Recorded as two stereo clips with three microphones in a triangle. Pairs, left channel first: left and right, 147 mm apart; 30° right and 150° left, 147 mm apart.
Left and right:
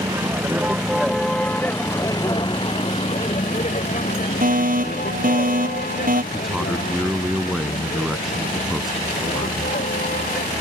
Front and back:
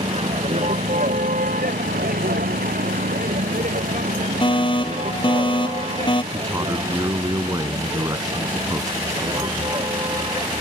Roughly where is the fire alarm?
Right.